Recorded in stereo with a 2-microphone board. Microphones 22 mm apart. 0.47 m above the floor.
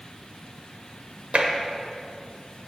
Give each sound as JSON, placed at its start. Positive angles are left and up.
{"t": 1.3, "sound": "tapping", "side_deg": -60, "distance_m": 1.2}